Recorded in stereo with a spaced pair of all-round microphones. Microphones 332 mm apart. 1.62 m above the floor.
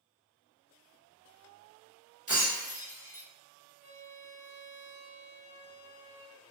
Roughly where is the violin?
Right.